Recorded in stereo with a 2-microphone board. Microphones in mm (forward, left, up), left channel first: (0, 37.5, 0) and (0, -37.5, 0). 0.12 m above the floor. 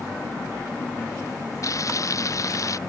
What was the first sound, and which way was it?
Frying, 50° left (ahead or behind).